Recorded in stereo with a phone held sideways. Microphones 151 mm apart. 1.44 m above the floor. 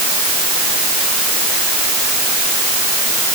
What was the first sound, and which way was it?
Only background noise.